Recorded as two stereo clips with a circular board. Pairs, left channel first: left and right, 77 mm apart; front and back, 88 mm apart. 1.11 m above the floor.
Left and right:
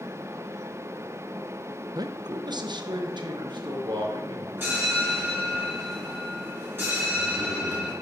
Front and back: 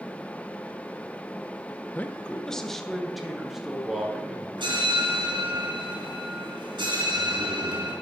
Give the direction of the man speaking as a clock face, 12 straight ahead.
2 o'clock.